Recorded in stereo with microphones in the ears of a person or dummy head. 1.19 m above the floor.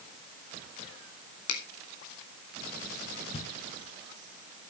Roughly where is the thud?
Left.